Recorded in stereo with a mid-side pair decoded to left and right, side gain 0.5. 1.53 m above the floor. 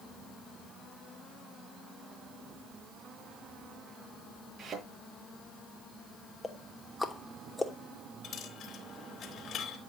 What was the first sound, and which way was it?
A thud, 40° right.